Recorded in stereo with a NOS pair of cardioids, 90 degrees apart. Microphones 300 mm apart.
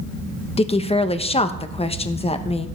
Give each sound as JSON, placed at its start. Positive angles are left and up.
{"t": 0.6, "sound": "a woman speaking", "azimuth_deg": 20, "distance_m": 1.0}